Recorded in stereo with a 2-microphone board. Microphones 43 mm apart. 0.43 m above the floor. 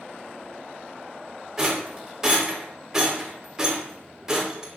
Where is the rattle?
10° right (ahead or behind), 1.0 m.